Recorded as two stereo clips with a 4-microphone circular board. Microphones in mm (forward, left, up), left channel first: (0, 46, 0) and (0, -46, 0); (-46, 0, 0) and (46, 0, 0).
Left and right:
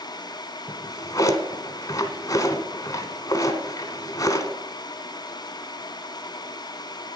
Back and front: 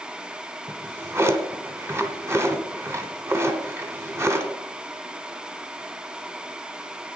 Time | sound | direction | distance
0.7 | a drawer | 50° left | 1.1 m